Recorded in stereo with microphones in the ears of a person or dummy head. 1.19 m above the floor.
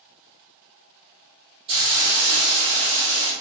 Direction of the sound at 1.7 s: 30° right (ahead or behind).